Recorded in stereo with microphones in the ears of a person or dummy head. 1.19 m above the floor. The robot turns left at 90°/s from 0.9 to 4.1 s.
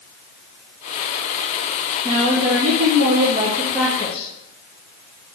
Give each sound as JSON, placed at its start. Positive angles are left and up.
{"t": 2.0, "sound": "a woman speaking", "azimuth_deg": -25, "distance_m": 0.8}